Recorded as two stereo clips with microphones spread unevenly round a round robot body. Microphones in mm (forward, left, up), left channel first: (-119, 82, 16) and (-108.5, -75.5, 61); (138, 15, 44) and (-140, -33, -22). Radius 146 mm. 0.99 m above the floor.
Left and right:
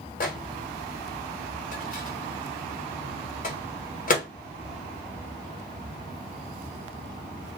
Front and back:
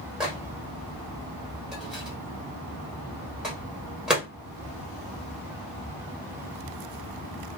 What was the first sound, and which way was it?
A microwave, 105° left.